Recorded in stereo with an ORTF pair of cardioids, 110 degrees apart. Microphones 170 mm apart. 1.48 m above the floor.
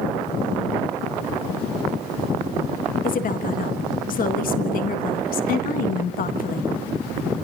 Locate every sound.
3.0 s a woman speaking: 55° left, 1.7 m